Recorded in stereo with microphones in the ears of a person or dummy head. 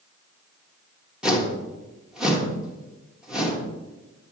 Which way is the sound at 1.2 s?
5° right (ahead or behind).